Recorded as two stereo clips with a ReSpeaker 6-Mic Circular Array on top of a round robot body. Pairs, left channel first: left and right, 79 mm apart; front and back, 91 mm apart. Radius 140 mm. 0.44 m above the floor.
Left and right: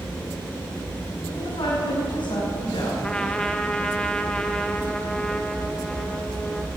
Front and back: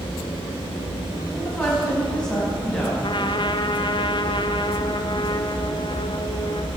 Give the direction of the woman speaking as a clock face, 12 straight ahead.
9 o'clock.